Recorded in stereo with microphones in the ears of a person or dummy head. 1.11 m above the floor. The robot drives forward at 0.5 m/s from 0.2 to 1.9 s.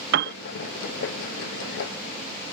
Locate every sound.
0.1 s a piano: 60° right (ahead or behind); by 0.3 s 65° right (ahead or behind)